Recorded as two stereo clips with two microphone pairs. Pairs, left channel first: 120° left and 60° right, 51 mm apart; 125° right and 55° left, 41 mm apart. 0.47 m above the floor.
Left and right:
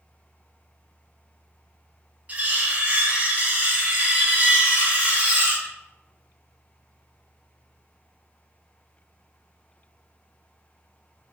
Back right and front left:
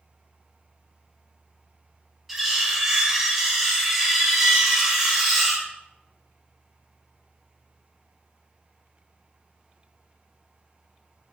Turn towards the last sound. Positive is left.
turn(degrees=-30)